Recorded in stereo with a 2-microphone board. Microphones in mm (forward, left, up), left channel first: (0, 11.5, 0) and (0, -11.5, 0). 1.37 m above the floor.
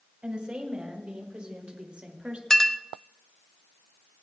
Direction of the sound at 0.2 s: 50° right (ahead or behind).